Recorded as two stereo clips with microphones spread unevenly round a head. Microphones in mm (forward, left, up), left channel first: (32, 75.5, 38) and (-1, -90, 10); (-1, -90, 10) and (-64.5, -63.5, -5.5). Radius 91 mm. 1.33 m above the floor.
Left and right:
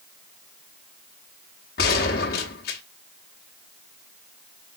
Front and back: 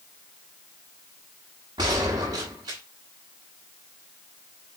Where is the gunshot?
100° left, 1.2 m.